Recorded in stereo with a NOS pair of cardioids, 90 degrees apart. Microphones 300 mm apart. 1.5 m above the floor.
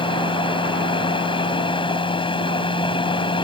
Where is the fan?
15° left.